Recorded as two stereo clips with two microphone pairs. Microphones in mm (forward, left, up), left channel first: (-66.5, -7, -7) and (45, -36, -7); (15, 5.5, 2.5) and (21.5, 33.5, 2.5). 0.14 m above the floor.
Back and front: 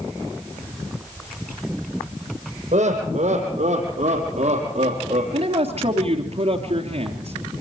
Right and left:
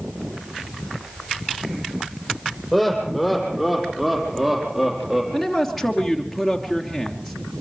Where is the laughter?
10° right, 5.5 m; by 5.2 s straight ahead, 4.5 m.